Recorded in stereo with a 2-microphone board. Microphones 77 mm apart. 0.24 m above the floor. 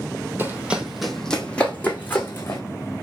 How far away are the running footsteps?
About 0.5 m.